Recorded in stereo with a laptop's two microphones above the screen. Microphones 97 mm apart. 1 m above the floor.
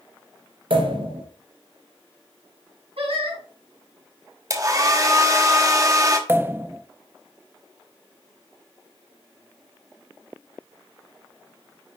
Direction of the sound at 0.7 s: 65° right (ahead or behind).